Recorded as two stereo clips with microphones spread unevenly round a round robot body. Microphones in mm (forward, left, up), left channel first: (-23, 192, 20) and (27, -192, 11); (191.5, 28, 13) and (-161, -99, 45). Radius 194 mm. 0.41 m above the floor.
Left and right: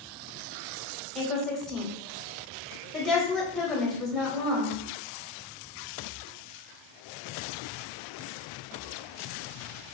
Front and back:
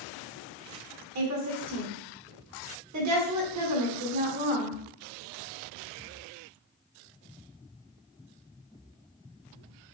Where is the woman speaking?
175° right, 1.4 m.